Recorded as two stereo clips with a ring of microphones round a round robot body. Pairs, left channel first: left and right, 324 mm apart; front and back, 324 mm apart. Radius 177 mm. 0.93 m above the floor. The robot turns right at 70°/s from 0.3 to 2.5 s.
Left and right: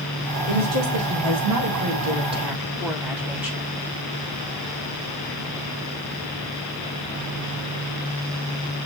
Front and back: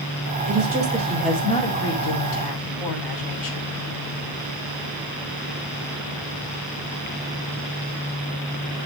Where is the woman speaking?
145° right, 6 m; by 3.6 s 5° right, 6 m.